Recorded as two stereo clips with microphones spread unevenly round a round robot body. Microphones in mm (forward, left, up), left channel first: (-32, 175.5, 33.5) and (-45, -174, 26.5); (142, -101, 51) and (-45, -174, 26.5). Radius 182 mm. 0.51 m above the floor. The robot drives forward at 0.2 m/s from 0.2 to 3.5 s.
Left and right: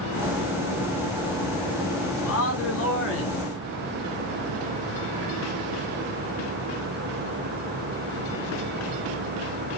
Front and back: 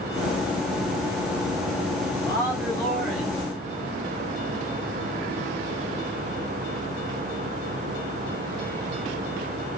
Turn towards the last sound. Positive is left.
turn(degrees=125)